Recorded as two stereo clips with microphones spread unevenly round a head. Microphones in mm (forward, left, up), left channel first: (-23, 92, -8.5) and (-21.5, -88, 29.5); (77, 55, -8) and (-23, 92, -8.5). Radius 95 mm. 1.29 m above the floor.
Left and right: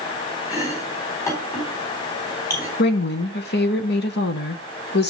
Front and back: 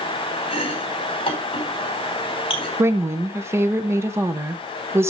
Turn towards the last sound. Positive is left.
turn(degrees=95)